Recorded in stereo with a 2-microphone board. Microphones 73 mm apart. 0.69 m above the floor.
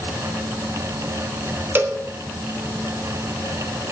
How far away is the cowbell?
About 1.4 m.